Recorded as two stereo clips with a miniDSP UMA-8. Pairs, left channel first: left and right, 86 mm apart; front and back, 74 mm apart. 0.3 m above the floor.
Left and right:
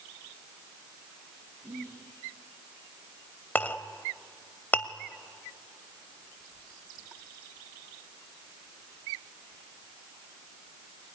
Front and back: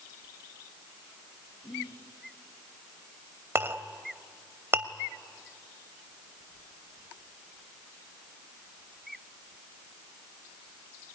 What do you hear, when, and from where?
1.6 s whispering: 35° right, 5.5 m
3.5 s a clink: 150° left, 0.8 m